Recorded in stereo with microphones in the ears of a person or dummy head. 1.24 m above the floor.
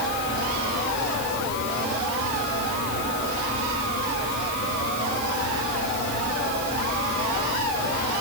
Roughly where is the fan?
Left.